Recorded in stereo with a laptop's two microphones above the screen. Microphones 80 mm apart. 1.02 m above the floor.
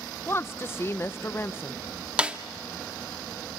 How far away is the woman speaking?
About 0.5 m.